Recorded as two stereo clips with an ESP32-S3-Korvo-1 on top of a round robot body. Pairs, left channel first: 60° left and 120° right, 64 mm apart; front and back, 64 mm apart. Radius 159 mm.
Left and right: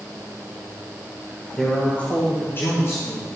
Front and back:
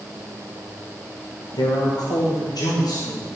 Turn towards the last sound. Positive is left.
turn(degrees=20)